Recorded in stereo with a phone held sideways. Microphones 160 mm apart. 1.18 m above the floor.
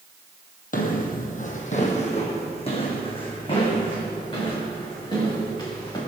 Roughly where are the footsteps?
Left.